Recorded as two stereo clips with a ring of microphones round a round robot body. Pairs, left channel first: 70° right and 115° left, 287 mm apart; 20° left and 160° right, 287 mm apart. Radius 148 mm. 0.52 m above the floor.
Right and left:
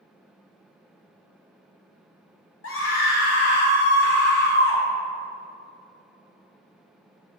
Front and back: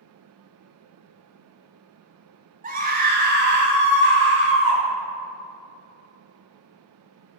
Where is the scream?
100° right, 2 m; by 4.8 s 120° right, 3 m.